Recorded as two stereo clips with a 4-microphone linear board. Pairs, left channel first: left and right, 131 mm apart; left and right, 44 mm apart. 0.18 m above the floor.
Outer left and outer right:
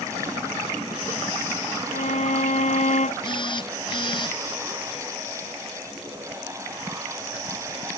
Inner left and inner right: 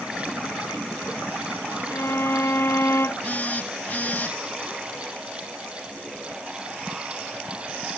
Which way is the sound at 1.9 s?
70° left (ahead or behind).